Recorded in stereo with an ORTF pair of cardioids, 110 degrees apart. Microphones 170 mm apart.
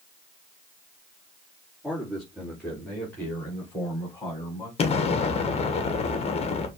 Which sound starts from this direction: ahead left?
An explosion, at 4.8 s.